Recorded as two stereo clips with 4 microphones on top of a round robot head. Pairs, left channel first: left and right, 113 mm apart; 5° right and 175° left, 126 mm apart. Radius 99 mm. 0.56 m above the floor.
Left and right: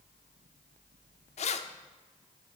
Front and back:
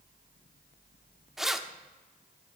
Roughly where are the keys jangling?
Left.